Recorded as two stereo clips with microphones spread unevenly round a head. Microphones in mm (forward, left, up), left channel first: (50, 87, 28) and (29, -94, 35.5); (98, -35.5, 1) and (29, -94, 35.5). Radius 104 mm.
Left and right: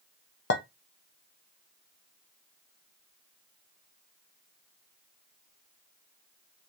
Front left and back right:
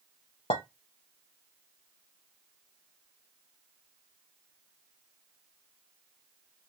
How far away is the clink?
About 0.6 m.